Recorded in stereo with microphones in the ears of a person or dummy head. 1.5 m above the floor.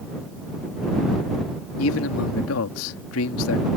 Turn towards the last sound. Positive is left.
turn(degrees=80)